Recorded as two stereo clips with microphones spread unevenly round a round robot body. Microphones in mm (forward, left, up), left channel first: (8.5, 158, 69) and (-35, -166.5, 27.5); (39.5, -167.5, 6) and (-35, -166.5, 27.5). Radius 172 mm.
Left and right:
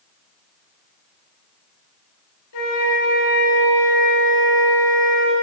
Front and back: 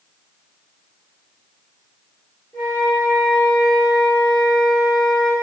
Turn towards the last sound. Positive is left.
turn(degrees=85)